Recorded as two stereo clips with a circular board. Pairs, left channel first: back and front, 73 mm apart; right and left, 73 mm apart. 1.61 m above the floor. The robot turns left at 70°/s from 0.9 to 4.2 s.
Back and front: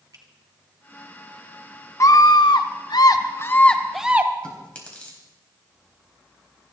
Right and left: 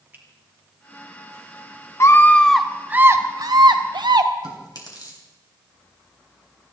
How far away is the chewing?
About 3.5 m.